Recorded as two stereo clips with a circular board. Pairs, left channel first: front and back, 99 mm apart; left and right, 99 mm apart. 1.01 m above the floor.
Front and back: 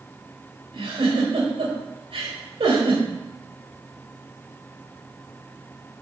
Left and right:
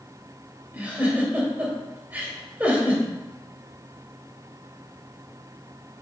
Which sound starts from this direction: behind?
A giggle, at 0.7 s.